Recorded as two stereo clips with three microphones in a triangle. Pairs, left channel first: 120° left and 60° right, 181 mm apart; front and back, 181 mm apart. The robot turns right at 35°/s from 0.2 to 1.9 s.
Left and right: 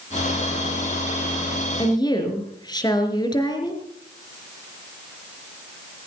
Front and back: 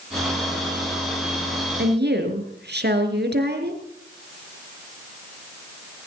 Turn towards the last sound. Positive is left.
turn(degrees=-175)